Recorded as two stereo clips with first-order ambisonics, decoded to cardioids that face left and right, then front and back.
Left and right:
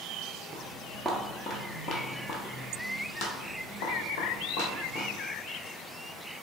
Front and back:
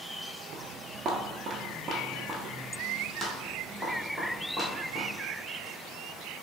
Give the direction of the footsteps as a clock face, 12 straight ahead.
5 o'clock.